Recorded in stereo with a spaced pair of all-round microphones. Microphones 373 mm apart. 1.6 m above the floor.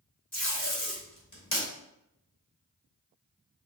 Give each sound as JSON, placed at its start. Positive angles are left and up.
{"t": 0.3, "sound": "tape being pulled", "side_deg": 50, "distance_m": 2.0}